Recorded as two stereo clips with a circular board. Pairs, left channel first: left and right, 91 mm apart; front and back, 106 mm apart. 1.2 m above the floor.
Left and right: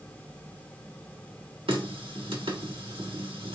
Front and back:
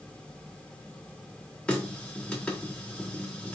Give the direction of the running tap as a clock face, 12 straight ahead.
3 o'clock.